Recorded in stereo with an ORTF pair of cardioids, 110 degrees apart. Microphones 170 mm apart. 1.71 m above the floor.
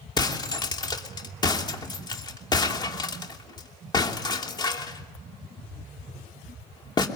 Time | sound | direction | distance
0.2 | breaking glass | 25° left | 3 m